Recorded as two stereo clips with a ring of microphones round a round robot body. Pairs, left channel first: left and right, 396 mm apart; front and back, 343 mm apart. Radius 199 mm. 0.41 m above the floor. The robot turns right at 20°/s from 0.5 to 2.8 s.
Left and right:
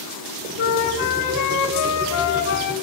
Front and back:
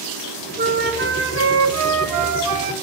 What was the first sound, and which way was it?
A flute, 115° left.